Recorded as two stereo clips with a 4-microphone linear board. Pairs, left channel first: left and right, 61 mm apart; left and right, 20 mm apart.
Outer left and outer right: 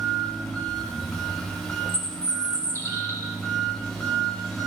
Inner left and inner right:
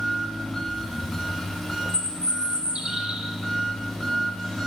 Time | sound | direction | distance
0.0 | an engine running | 10° left (ahead or behind) | 1.4 m
1.9 | a bird | 55° right (ahead or behind) | 0.8 m